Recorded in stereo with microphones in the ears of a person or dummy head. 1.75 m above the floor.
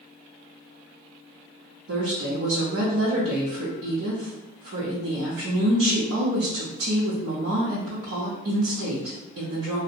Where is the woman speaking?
75° right (ahead or behind), 0.7 m.